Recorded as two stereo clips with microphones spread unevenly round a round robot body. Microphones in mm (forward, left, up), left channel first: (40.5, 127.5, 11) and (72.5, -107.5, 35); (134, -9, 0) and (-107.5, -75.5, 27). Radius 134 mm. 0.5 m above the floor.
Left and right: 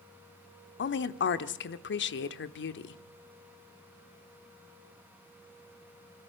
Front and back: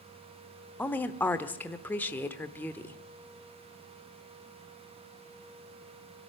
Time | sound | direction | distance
0.8 | a woman speaking | 90° left | 1.1 m